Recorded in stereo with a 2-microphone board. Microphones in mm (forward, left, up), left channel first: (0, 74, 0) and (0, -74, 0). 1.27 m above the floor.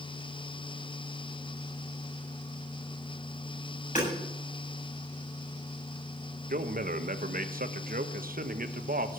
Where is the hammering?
55° left (ahead or behind), 7.5 m.